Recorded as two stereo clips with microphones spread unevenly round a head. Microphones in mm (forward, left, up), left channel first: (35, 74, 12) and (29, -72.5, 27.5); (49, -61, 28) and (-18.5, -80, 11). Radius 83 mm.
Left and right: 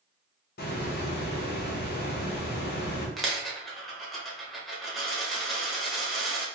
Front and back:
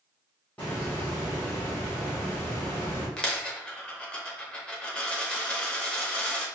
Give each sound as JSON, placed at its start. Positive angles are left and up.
{"t": 0.6, "sound": "a hiss", "azimuth_deg": 100, "distance_m": 1.2}
{"t": 3.2, "sound": "a dropped coin", "azimuth_deg": -15, "distance_m": 0.8}